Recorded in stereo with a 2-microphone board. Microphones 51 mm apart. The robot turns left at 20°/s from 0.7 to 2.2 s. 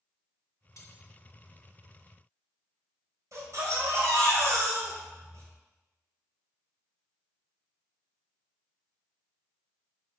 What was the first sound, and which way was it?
Cutlery clinking, 75° left (ahead or behind).